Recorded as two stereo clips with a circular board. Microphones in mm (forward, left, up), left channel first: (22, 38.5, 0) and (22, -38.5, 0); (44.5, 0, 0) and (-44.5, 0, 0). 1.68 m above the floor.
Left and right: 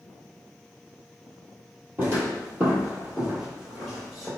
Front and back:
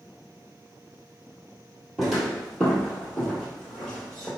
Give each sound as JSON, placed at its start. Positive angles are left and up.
{"t": 2.0, "sound": "footsteps", "azimuth_deg": -100, "distance_m": 1.9}